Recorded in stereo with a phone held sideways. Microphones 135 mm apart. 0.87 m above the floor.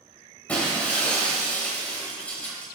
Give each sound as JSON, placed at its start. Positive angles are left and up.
{"t": 0.5, "sound": "breaking glass", "side_deg": 10, "distance_m": 2.0}